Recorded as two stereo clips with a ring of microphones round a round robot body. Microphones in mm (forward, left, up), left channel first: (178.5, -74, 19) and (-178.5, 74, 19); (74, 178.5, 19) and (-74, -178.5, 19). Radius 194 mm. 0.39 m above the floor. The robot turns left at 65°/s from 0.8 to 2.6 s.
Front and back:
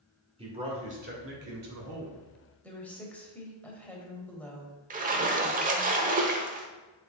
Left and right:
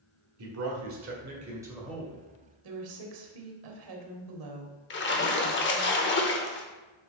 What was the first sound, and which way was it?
A man speaking, 135° right.